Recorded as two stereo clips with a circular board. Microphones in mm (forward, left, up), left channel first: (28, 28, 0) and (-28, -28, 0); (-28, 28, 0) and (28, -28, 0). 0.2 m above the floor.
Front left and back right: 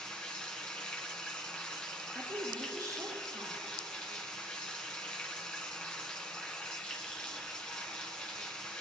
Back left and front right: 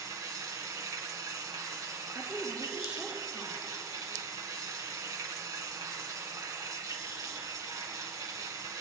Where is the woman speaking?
115° right, 2.5 m.